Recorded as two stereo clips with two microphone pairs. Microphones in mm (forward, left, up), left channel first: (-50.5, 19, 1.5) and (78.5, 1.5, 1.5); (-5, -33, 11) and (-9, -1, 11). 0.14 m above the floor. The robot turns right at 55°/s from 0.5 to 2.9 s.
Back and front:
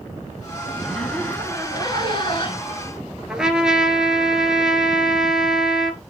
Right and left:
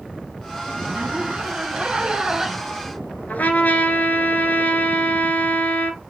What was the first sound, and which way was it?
A zipper, 75° left.